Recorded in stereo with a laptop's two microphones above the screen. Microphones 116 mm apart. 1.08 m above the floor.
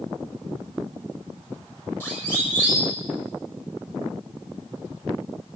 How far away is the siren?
About 7 m.